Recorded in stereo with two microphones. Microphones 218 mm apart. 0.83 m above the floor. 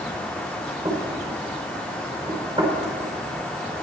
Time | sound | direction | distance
0.8 | knocking | 20° right (ahead or behind) | 3 m